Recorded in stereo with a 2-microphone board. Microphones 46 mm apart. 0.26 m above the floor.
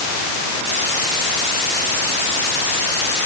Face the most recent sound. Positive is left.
No sound to turn to.